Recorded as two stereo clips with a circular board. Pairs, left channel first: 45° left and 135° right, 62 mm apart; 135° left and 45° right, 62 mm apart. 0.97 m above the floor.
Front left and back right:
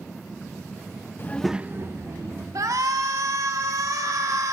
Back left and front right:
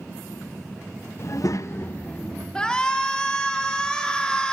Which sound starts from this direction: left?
A child speaking, at 1.2 s.